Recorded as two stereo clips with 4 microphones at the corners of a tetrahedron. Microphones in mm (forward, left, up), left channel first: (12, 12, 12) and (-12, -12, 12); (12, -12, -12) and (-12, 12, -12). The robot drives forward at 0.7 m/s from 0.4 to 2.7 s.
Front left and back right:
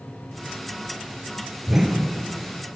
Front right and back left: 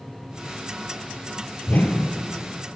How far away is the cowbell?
No cowbell in this recording.